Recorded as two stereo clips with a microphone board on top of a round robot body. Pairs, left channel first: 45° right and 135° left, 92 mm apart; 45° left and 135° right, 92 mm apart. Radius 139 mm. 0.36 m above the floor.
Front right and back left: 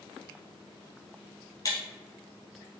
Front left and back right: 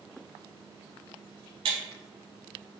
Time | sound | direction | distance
1.6 | breaking glass | 100° right | 0.6 m